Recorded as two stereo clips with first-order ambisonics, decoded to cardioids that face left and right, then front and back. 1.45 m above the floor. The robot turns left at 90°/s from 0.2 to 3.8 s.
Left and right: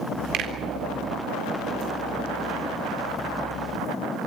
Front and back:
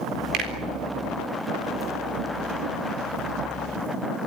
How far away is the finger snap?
About 4 m.